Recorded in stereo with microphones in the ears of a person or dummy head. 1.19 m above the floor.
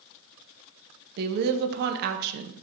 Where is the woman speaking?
55° right (ahead or behind), 0.6 m.